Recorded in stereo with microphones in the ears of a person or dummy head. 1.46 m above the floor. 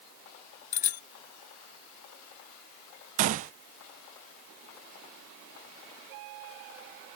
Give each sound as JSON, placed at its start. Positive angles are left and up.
{"t": 0.7, "sound": "a bicycle bell", "side_deg": 40}
{"t": 3.2, "sound": "a gunshot", "side_deg": -40}